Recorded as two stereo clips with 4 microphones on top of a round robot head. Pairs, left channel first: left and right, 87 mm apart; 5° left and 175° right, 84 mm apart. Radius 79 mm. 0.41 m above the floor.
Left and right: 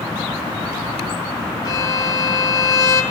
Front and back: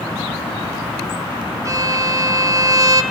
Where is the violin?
140° left, 1.7 m.